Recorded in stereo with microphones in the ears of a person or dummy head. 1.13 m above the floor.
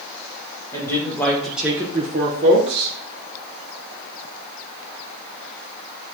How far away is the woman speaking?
About 1.9 m.